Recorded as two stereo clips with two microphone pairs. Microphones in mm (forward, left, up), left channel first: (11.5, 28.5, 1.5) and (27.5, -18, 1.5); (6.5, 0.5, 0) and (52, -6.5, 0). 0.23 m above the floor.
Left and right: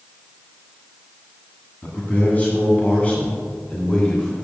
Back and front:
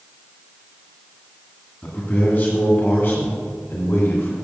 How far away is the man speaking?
About 2 m.